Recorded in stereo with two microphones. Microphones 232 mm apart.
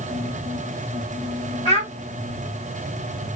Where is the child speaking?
30° right (ahead or behind), 1.5 m.